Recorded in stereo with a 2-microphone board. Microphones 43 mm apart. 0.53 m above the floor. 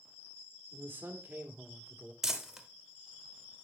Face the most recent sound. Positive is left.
turn(degrees=-10)  # may be behind; listen again after turning